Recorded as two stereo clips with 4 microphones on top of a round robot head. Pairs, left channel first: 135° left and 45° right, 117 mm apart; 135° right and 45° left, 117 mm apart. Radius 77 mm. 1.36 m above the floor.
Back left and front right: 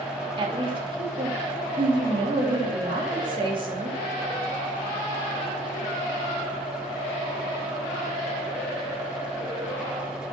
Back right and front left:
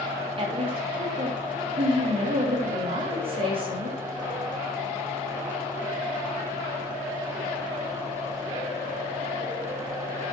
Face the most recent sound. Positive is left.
turn(degrees=0)